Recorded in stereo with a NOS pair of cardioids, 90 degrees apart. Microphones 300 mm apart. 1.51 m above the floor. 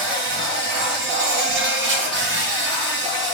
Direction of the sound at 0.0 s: 40° right.